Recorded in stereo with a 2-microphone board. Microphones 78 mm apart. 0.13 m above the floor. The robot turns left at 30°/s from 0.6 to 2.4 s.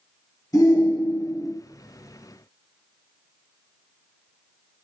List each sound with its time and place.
0.5 s a shout: 45° left (ahead or behind), 2 m; by 1.5 s 50° left (ahead or behind), 2 m